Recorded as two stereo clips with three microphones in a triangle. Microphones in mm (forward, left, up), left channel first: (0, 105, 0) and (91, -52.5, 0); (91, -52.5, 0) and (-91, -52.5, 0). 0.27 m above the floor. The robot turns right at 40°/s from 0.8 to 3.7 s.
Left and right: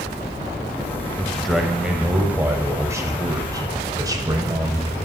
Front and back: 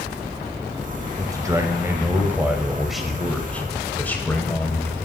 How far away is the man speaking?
About 0.9 m.